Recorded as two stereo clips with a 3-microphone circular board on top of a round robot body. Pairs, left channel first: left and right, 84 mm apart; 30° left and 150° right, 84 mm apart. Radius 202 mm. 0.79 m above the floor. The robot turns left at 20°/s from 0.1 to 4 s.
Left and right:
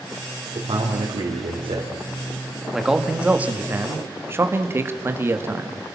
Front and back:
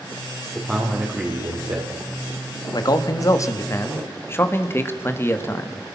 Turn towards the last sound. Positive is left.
turn(degrees=-30)